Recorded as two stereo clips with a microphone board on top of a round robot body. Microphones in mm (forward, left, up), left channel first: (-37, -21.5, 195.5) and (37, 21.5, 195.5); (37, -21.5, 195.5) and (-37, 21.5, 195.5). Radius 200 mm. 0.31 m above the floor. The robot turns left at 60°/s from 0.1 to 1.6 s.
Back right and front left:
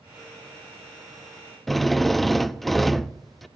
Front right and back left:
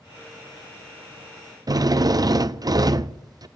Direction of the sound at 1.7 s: 120° left.